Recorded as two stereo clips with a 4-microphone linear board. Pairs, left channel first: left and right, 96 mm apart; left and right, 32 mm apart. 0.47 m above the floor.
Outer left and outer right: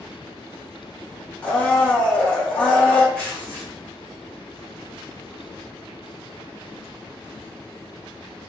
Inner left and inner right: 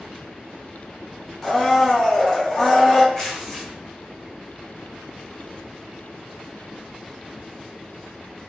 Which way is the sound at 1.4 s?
15° left (ahead or behind).